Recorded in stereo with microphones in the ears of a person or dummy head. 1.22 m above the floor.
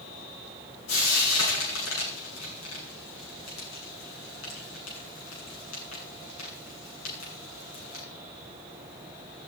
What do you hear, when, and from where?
0.9 s frying: 80° left, 8.5 m